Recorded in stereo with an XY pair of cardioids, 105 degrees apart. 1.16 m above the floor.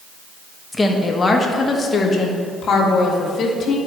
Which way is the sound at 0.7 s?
15° left.